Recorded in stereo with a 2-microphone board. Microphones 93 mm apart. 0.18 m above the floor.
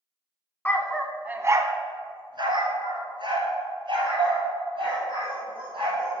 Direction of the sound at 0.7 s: 20° left (ahead or behind).